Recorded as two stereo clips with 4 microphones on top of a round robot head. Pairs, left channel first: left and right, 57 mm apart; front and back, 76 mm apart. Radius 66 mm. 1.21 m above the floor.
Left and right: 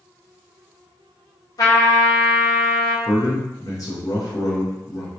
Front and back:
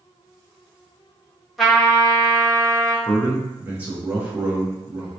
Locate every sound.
1.6 s a trumpet: 90° left, 1.1 m
3.0 s a man speaking: 105° left, 0.9 m